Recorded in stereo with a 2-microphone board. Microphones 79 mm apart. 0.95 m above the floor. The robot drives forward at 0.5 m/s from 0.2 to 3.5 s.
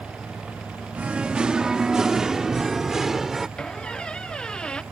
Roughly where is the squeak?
Centre.